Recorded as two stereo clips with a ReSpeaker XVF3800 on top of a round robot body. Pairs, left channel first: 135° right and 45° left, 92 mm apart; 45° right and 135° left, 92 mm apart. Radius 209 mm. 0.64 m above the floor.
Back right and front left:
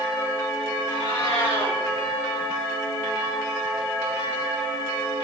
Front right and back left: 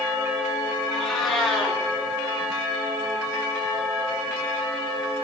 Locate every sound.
0.9 s a cat meowing: 130° right, 5.5 m